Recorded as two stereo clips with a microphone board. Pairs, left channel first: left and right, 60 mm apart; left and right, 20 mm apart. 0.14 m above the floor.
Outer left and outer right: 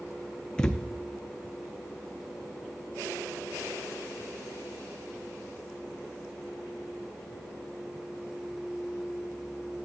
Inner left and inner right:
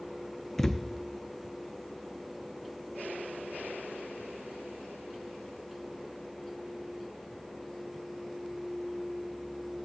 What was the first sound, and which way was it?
A thud, 15° left (ahead or behind).